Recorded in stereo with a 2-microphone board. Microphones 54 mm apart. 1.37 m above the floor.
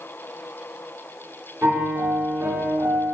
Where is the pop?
I don't hear a pop.